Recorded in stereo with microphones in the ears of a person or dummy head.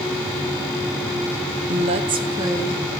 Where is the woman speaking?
45° right (ahead or behind), 0.7 m; by 2.9 s 15° right (ahead or behind), 1.1 m.